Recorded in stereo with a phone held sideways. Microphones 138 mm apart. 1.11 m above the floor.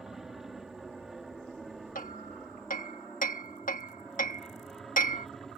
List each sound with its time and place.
0.0 s an aircraft: 5° right (ahead or behind); by 5.6 s centre (ahead or behind)
1.9 s hammering: 85° left